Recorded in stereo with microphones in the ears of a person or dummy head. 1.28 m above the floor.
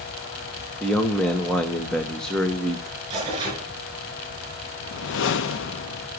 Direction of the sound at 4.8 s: 65° left (ahead or behind).